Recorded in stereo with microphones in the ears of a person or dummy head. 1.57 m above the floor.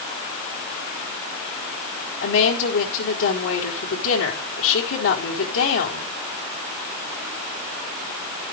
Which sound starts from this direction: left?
A woman speaking, at 2.2 s.